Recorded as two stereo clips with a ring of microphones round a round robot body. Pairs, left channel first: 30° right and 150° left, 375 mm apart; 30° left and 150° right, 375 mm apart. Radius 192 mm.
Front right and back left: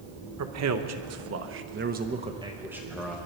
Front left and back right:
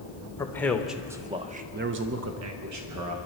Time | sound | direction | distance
0.4 | a man speaking | 110° left | 1.3 m